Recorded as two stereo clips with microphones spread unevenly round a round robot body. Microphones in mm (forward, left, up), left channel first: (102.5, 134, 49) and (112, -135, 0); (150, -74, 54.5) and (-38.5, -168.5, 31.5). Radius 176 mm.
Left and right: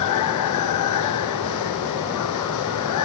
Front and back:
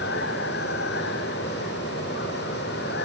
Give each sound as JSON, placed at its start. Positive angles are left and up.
{"t": 0.0, "sound": "running water", "azimuth_deg": 85}